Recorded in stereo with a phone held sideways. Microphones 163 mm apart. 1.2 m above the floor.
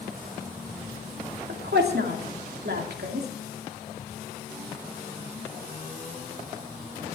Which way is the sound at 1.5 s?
85° right.